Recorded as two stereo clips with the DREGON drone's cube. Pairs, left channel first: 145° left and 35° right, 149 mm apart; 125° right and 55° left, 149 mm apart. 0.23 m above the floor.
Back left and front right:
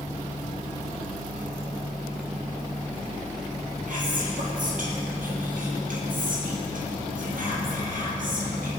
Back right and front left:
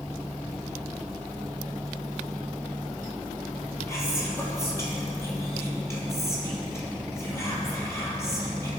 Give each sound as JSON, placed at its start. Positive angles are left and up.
{"t": 3.9, "sound": "whispering", "azimuth_deg": -55, "distance_m": 4.5}